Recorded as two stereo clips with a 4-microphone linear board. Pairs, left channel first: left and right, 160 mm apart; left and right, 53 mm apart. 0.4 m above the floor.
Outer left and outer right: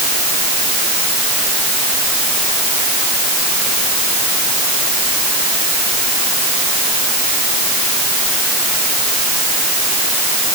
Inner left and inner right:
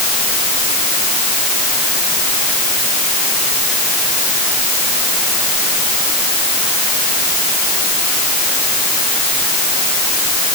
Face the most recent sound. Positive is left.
No sound to turn to.